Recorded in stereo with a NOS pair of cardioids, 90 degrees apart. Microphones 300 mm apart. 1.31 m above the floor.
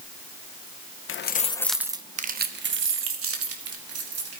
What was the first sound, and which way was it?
Keys jangling, 45° left.